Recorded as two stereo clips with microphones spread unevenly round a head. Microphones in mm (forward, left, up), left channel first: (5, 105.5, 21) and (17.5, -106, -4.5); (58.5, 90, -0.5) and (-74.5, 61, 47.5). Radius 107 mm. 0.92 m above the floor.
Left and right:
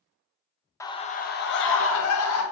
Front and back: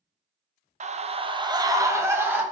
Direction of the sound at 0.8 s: 170° left.